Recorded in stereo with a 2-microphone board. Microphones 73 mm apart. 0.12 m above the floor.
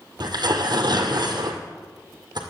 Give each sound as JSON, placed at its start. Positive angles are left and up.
{"t": 0.2, "sound": "tearing paper", "side_deg": -65, "distance_m": 2.0}